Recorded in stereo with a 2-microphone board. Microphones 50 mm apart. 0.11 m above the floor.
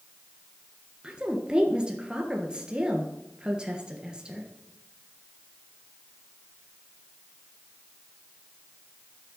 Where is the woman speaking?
15° right (ahead or behind), 1.6 m.